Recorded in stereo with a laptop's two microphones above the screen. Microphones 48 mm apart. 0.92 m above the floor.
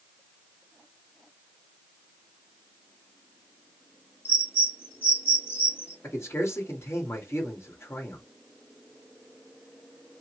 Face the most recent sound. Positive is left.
turn(degrees=65)  # may be behind; listen again after turning